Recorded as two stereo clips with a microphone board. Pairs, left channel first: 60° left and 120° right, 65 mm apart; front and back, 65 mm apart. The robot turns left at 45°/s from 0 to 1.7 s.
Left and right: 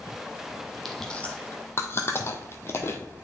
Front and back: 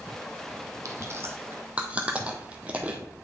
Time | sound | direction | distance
0.8 | chewing | 145° left | 1.0 m